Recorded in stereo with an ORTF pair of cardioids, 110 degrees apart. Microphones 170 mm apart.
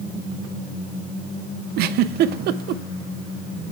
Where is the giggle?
70° right, 0.6 m.